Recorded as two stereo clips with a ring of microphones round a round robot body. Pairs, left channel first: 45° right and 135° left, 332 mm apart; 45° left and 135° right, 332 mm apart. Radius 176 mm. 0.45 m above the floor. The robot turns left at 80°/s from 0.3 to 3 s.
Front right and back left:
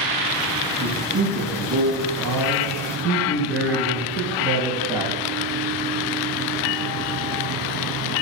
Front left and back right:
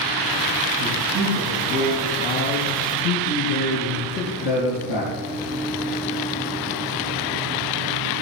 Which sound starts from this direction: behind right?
A man speaking, at 0.8 s.